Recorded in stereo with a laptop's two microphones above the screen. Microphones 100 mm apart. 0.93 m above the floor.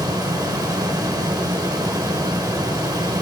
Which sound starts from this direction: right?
A fan, at 0.0 s.